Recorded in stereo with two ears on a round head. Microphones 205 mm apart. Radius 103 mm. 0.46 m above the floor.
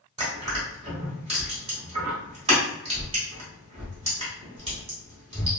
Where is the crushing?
25° right (ahead or behind), 1.5 m.